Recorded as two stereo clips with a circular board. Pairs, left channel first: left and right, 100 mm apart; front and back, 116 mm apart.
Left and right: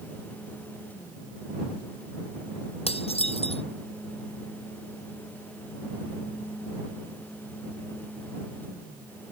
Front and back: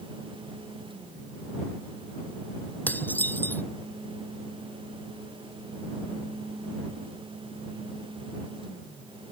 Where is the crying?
I don't hear crying.